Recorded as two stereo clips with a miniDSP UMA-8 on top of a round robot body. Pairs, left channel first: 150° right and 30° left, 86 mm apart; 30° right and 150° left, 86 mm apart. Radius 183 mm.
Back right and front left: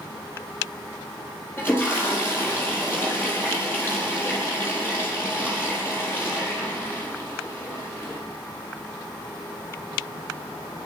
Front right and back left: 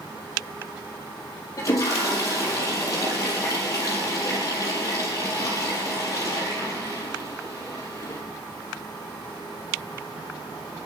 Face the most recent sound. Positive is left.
turn(degrees=-85)